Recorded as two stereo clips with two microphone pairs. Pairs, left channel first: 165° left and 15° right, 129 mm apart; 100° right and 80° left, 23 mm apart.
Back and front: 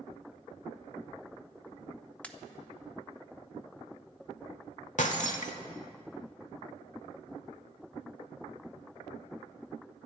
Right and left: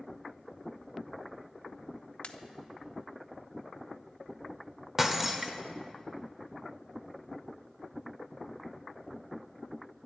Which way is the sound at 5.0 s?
155° left.